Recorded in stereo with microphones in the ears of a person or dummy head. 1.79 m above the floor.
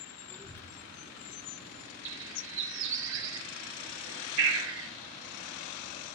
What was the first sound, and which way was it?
A child speaking, 10° left (ahead or behind).